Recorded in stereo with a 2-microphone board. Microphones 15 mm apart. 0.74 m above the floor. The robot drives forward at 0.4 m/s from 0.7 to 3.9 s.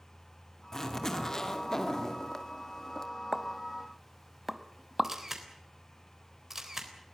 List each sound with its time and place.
0.7 s a zipper: 35° left (ahead or behind), 2.5 m; by 3.1 s 45° left (ahead or behind), 1.8 m
3.3 s a pop: 20° right (ahead or behind), 1.0 m; by 5.1 s 15° right (ahead or behind), 1.2 m
5.0 s a camera shutter: 30° right (ahead or behind), 3.5 m